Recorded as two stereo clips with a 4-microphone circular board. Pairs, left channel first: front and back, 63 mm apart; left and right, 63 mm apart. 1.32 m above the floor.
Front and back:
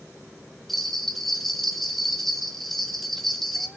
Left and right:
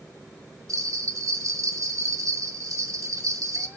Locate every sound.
0.7 s a bell: 85° right, 1.1 m